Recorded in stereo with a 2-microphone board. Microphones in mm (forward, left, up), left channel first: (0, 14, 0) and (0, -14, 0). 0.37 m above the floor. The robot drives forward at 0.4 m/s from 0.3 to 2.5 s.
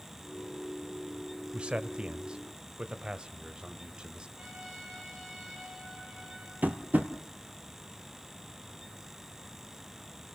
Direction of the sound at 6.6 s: 85° right.